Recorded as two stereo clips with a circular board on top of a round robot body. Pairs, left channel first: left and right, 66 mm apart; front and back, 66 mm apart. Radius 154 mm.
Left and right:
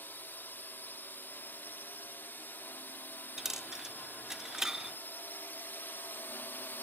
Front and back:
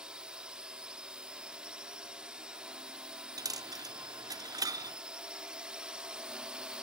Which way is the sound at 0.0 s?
115° left.